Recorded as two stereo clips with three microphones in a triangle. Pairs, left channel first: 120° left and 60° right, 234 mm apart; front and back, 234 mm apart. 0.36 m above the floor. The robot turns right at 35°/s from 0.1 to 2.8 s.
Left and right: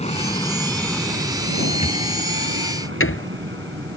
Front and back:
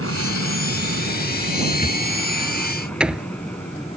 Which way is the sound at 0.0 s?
Straight behind.